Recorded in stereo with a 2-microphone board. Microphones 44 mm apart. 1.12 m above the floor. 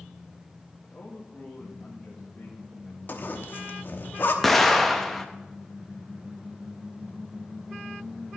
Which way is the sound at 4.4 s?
5° left (ahead or behind).